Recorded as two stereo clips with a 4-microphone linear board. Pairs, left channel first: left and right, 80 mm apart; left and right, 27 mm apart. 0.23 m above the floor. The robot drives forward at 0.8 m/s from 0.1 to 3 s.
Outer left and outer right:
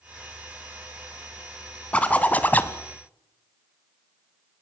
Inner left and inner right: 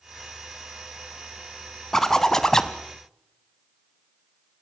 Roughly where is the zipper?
Centre.